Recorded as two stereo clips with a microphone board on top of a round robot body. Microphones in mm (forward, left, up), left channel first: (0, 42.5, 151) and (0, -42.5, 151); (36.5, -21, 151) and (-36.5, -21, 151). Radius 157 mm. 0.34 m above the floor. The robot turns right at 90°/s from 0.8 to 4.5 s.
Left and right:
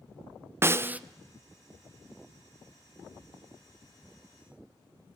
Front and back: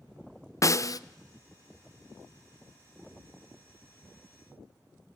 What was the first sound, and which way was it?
A snare drum, 35° right.